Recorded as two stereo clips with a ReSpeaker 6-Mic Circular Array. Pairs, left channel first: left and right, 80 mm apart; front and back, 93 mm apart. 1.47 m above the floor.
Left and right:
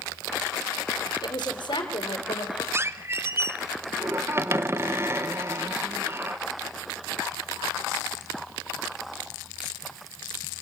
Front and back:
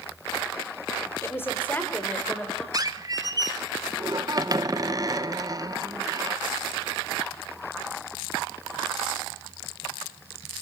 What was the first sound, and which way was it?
A woman speaking, 60° left.